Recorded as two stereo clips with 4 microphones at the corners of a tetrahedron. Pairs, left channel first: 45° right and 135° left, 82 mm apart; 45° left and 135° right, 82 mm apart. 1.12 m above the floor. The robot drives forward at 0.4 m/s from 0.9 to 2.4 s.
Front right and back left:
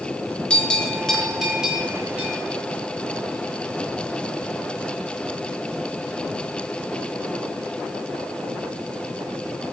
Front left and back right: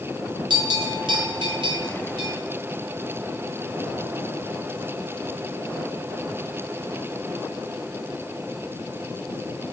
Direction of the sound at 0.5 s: 125° right.